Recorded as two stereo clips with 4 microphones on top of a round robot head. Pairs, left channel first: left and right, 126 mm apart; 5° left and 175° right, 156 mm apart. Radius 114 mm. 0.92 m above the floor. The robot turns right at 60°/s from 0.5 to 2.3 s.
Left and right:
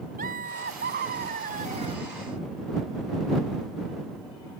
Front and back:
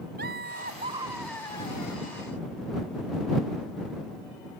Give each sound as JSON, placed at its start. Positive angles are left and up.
{"t": 0.2, "sound": "laughter", "azimuth_deg": -130}